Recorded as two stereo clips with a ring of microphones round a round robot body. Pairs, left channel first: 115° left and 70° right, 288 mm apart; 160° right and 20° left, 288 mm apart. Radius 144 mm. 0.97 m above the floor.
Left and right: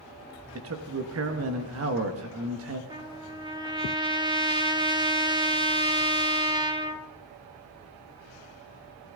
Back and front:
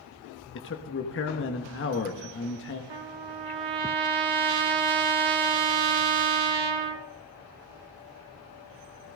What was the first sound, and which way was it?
A man speaking, 110° right.